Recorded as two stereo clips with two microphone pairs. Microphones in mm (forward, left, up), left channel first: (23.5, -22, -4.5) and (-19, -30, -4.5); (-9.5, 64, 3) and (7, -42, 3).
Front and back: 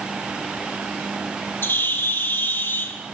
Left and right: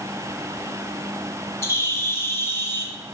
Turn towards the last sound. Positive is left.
turn(degrees=35)